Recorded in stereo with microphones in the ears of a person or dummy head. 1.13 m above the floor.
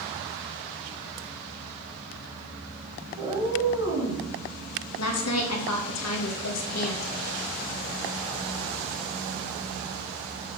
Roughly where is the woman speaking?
Left.